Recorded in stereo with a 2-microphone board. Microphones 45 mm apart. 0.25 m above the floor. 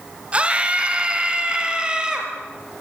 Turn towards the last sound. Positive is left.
turn(degrees=-20)  # may be behind; listen again after turning